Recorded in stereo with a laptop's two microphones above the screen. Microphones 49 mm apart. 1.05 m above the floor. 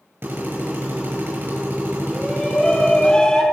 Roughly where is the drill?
Right.